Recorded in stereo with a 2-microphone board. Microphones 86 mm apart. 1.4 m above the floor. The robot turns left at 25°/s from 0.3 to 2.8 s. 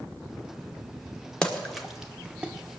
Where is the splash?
10° left (ahead or behind), 1.2 m; by 2.5 s 20° right (ahead or behind), 1.2 m.